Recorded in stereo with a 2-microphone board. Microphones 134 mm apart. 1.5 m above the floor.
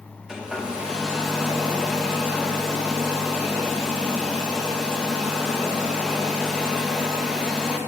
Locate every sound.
0.3 s a hair dryer: 5° right (ahead or behind), 1.0 m